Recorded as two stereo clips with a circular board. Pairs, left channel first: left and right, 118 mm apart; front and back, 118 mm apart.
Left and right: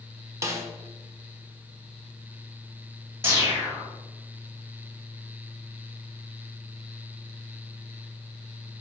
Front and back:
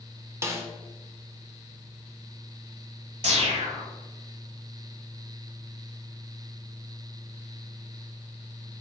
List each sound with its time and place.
0.4 s a snare drum: 135° right, 0.6 m
3.2 s a whoosh: 160° right, 1.2 m